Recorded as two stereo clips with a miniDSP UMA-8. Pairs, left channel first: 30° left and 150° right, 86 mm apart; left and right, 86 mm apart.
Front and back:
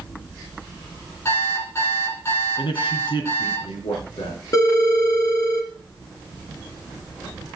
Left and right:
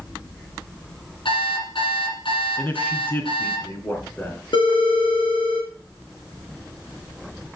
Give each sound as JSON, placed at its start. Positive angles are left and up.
{"t": 1.2, "sound": "an alarm clock", "azimuth_deg": 85, "distance_m": 7.0}
{"t": 2.6, "sound": "a man speaking", "azimuth_deg": 20, "distance_m": 3.0}
{"t": 4.5, "sound": "a phone ringing", "azimuth_deg": 80, "distance_m": 2.5}